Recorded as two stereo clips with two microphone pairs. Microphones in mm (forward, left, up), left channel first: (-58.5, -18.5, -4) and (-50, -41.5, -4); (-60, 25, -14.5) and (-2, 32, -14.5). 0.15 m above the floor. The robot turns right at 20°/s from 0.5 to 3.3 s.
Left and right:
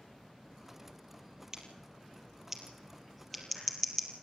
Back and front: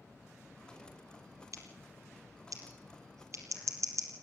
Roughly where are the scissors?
Ahead.